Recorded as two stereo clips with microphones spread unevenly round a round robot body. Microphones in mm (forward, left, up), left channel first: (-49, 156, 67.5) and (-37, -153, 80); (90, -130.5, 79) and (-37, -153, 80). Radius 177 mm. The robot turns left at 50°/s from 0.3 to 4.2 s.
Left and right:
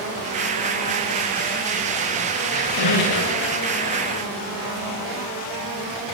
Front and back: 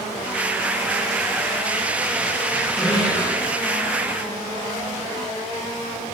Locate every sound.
2.5 s a squeak: 105° left, 9 m; by 3.5 s 55° left, 9 m